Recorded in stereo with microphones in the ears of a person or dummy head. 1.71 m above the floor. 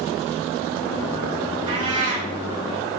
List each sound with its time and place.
1.7 s a cat meowing: 25° right (ahead or behind), 4 m